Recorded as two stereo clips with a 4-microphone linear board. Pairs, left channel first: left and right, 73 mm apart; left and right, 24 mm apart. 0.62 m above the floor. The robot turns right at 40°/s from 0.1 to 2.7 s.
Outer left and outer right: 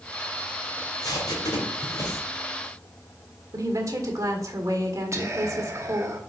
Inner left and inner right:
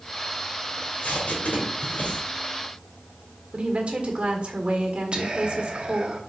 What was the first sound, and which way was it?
Tape being pulled, 60° left (ahead or behind).